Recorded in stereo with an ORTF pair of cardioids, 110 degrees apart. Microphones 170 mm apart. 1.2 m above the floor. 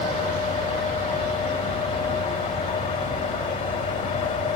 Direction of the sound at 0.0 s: 50° left.